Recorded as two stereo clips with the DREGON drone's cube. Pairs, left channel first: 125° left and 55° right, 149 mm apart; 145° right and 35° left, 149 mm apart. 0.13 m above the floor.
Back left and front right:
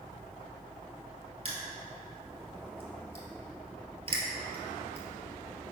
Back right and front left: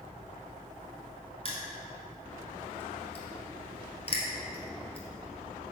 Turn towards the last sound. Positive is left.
turn(degrees=-100)